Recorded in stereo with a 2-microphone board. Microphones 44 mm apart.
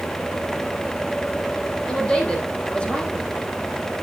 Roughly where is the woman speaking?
Left.